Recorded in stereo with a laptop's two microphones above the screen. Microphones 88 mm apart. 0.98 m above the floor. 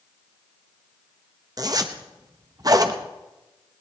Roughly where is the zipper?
Right.